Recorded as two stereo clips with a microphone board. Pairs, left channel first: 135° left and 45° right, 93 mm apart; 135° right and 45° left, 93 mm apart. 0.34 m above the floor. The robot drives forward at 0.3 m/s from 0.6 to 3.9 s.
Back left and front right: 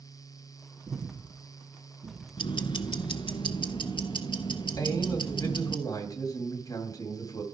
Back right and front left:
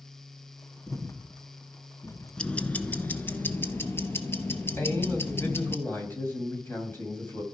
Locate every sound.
0.9 s breathing: 60° right, 2.5 m; by 2.3 s 65° right, 2 m
2.4 s ticking: 150° left, 0.6 m; by 5.8 s 160° left, 1.0 m
4.8 s a man speaking: 170° left, 2.5 m